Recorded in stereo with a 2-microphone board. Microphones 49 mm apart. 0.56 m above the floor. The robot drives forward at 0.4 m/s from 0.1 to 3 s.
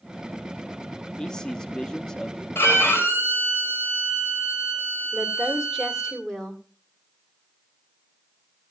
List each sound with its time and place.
1.2 s a man speaking: 15° left (ahead or behind), 0.6 m; by 2.5 s 10° left (ahead or behind), 0.7 m
2.5 s a violin: 60° left (ahead or behind), 3 m
5.1 s a woman speaking: 10° left (ahead or behind), 1.9 m